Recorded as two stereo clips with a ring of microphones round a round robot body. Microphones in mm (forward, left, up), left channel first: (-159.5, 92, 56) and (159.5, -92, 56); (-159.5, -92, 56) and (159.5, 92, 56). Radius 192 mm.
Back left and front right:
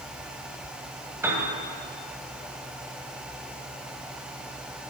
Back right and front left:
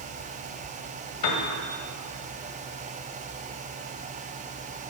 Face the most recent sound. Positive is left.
turn(degrees=-115)